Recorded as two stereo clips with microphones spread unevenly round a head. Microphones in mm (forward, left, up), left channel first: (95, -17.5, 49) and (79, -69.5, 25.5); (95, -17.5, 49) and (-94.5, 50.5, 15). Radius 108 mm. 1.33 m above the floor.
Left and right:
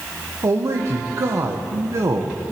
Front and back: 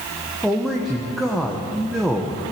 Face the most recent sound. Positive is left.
turn(degrees=-115)